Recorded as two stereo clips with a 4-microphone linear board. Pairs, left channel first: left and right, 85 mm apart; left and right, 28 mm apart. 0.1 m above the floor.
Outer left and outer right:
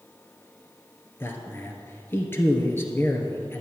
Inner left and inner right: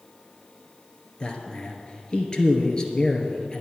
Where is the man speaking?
25° left (ahead or behind), 1.6 m.